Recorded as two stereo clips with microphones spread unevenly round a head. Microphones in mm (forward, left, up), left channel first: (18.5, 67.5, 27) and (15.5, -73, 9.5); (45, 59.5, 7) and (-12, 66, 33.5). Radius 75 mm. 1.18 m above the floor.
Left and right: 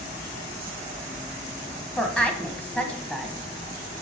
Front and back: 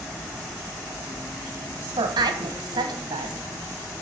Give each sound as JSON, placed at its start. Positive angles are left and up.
{"t": 2.0, "sound": "a woman speaking", "azimuth_deg": 175, "distance_m": 1.3}